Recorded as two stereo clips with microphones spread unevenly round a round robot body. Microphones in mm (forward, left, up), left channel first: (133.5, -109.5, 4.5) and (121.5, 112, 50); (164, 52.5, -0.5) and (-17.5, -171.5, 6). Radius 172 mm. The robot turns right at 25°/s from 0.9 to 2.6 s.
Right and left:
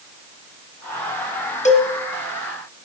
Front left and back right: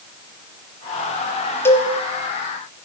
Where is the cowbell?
30° right, 1.1 m; by 1.9 s 25° right, 1.1 m.